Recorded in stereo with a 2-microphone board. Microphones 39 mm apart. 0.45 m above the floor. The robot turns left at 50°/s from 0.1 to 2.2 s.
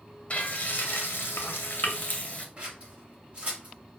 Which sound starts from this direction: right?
Scissors, at 2.6 s.